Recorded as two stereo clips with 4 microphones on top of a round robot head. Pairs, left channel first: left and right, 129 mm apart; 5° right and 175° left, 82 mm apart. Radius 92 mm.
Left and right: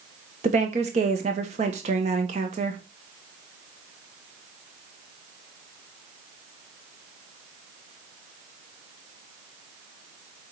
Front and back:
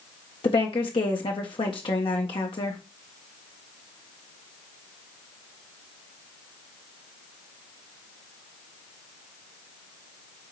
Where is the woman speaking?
45° right, 1.4 m.